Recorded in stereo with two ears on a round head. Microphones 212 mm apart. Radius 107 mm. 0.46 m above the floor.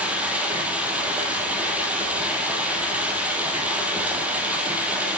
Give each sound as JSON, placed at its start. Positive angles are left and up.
{"t": 0.0, "sound": "running water", "side_deg": -5, "distance_m": 2.5}